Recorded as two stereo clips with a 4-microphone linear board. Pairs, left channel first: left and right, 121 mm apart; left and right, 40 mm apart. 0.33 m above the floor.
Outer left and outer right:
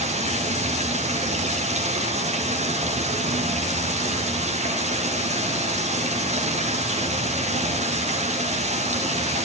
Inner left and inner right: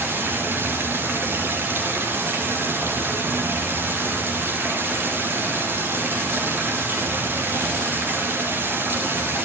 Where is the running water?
65° right (ahead or behind), 7 m.